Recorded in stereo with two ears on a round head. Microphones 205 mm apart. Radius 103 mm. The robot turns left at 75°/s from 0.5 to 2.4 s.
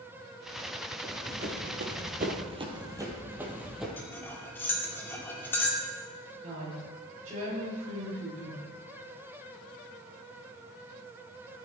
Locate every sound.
1.0 s running footsteps: 5° right (ahead or behind), 2.5 m; by 3.9 s centre (ahead or behind), 2.5 m
4.0 s cutlery clinking: 10° left (ahead or behind), 2 m
6.4 s a woman speaking: 35° right (ahead or behind), 6.5 m